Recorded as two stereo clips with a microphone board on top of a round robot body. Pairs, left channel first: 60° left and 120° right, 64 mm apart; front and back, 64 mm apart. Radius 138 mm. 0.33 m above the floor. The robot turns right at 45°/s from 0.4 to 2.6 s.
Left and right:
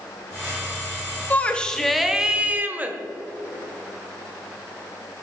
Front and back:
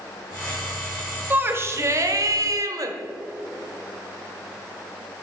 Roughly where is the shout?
Behind left.